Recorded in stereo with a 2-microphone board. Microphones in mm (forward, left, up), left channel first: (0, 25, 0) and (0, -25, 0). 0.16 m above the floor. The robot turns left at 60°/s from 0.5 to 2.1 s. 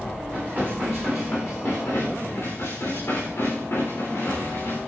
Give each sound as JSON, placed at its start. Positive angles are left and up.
{"t": 0.3, "sound": "dishes clattering", "azimuth_deg": -150, "distance_m": 9.0}